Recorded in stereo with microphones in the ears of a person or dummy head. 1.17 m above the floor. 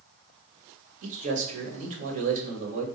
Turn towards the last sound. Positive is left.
turn(degrees=-40)  # may be behind; listen again after turning